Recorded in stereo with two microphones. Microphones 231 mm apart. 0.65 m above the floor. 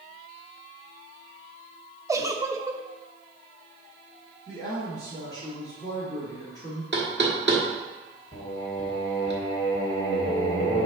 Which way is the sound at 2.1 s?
15° right (ahead or behind).